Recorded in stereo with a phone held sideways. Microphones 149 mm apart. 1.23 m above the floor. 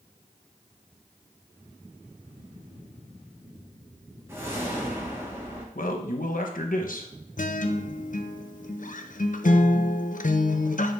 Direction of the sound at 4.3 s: 15° right (ahead or behind).